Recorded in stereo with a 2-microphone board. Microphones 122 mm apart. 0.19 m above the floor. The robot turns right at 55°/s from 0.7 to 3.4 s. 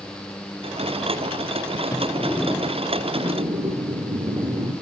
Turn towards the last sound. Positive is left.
turn(degrees=-130)